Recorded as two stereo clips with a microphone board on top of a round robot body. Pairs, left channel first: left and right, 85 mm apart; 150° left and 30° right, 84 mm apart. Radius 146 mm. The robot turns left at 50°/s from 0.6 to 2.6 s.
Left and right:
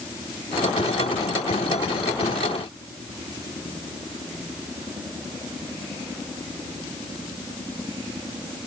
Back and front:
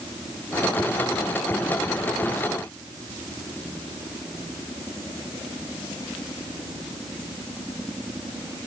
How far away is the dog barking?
I don't hear a dog barking.